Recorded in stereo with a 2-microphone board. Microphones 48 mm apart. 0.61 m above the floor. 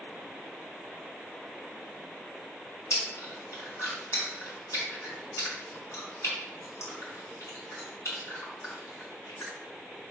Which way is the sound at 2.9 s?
75° left (ahead or behind).